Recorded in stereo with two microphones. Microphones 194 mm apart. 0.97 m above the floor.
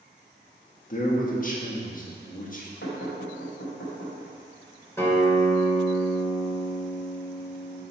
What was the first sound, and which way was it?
A man speaking, 45° left (ahead or behind).